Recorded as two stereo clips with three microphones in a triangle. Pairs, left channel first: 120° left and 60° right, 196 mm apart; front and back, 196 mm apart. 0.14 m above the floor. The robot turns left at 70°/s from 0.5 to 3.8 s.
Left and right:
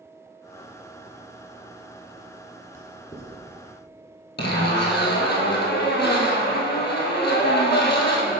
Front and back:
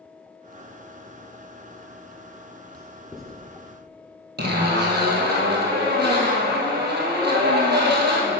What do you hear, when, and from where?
2.7 s writing: 125° left, 1.5 m; by 3.4 s 80° left, 1.5 m
4.4 s a zipper: 150° left, 1.4 m